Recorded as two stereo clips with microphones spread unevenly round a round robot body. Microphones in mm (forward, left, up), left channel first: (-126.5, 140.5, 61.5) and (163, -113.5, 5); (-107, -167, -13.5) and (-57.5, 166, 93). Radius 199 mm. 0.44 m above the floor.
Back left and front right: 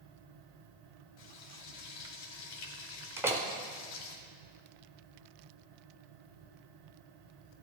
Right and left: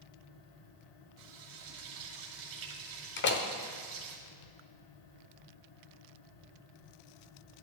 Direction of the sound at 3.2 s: 115° right.